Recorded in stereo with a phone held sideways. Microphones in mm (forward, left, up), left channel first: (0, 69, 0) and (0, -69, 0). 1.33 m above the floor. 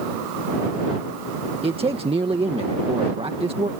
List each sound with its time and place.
1.6 s a man speaking: 40° right (ahead or behind)